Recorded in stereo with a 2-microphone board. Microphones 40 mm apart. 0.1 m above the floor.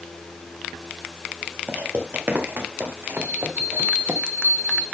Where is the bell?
65° right (ahead or behind), 4 m.